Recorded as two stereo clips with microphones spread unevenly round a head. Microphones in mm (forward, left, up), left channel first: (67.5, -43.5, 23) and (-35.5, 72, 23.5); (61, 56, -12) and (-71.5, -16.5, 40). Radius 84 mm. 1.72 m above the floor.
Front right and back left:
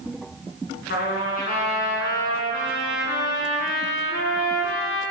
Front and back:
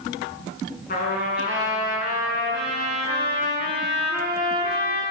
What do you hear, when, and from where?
0.9 s a trumpet: 15° right, 7.5 m